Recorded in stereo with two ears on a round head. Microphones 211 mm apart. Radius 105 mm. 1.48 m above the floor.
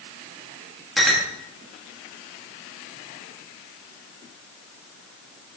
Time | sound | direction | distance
1.0 | a clink | centre (ahead or behind) | 1.6 m